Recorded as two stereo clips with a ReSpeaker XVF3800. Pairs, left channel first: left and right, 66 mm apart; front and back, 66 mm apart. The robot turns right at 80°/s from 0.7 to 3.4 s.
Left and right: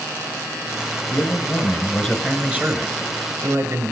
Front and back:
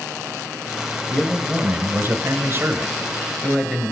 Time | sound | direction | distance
1.1 | a man speaking | 95° left | 2 m